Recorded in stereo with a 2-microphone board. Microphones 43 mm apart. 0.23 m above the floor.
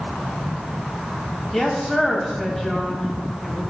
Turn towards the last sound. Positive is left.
turn(degrees=10)  # may be behind; listen again after turning